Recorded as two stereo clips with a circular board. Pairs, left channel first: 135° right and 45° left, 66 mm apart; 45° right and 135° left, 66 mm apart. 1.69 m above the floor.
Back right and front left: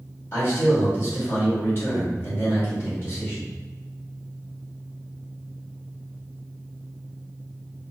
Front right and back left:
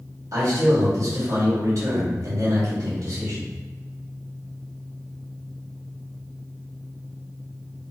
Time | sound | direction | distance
0.3 | a man speaking | 170° left | 1.3 m